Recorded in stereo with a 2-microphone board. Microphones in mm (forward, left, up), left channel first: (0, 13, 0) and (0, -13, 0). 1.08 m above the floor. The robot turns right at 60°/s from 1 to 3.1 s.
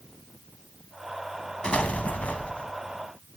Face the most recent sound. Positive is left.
turn(degrees=145)